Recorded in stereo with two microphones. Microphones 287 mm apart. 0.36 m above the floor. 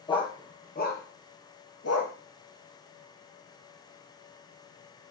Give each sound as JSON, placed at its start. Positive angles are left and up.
{"t": 0.1, "sound": "a dog barking", "side_deg": 15, "distance_m": 2.0}